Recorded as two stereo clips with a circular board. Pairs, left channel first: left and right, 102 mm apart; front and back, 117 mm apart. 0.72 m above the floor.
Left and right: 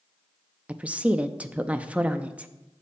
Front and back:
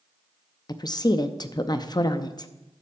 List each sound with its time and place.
0.7 s a woman speaking: 20° right, 0.5 m